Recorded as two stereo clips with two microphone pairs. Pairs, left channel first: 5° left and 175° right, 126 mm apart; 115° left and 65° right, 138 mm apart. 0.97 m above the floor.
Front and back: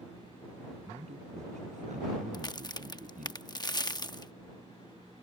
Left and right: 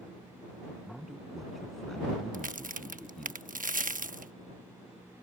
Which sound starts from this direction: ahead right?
A crack, at 2.3 s.